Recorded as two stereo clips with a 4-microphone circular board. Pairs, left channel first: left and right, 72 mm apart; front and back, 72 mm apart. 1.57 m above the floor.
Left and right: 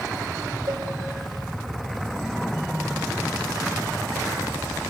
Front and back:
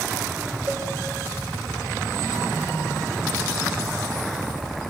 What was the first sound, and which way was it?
A cowbell, 115° right.